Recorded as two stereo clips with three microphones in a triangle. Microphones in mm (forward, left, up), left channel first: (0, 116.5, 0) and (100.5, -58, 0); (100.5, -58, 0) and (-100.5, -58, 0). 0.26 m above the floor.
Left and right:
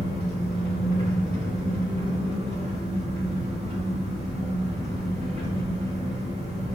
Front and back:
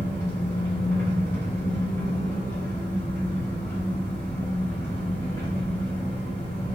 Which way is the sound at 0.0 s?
65° right.